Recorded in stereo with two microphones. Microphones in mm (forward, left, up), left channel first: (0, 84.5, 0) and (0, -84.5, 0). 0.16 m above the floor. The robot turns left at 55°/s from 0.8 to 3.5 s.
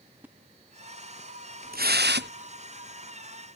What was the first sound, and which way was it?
A splash, 10° right (ahead or behind).